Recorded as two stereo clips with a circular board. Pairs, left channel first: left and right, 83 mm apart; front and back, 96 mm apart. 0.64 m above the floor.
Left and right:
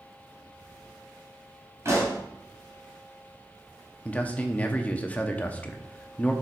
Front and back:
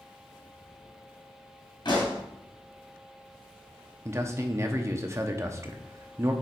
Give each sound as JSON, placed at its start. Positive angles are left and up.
{"t": 1.9, "sound": "a pop", "azimuth_deg": -35, "distance_m": 2.5}
{"t": 4.0, "sound": "a man speaking", "azimuth_deg": 150, "distance_m": 0.8}